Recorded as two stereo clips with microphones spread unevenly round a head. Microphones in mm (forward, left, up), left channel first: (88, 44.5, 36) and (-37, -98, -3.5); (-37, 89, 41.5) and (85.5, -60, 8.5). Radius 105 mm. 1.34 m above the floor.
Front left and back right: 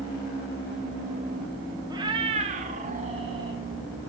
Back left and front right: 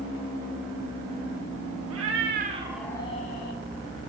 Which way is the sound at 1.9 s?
55° right.